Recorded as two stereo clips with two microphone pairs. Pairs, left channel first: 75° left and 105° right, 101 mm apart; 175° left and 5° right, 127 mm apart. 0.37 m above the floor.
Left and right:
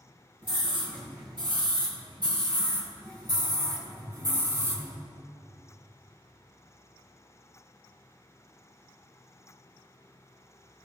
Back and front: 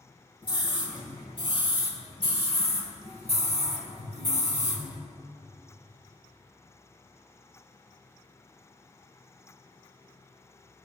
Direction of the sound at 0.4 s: 135° right.